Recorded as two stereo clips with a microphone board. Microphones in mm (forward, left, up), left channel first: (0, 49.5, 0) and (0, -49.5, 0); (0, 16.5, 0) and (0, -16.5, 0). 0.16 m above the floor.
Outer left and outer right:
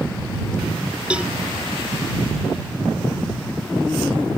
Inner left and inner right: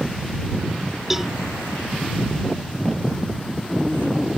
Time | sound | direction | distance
1.1 | a cowbell | 10° right (ahead or behind) | ?